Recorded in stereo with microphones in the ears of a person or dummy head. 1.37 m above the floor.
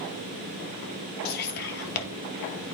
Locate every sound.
1.2 s whispering: 55° left (ahead or behind), 1.6 m